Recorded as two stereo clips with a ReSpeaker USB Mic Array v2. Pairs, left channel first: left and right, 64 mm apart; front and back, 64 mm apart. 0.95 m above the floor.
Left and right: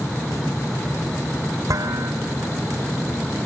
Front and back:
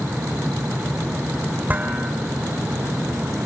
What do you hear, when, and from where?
1.7 s dishes clattering: 115° right, 2 m